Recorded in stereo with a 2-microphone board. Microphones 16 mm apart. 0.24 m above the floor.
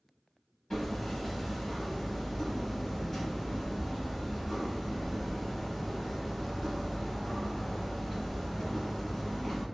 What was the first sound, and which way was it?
Hammering, 25° left (ahead or behind).